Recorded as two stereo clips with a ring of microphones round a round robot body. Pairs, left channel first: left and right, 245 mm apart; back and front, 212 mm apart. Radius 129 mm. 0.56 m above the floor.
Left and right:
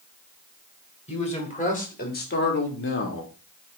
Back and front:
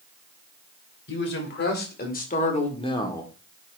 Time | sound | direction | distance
1.1 | a man speaking | 155° left | 3 m